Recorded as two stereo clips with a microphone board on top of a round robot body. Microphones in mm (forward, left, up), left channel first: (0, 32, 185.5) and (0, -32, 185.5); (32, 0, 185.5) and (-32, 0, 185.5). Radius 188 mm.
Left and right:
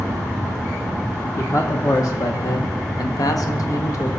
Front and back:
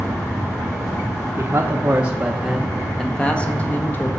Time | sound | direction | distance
1.4 | a man speaking | 130° left | 1.4 m